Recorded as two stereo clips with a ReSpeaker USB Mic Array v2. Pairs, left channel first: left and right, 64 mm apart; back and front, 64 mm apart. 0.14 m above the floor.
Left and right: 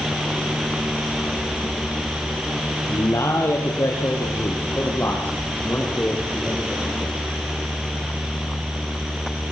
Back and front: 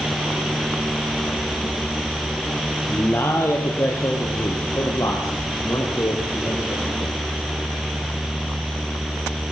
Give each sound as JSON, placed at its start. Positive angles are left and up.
{"t": 2.9, "sound": "a man speaking", "azimuth_deg": 130, "distance_m": 3.5}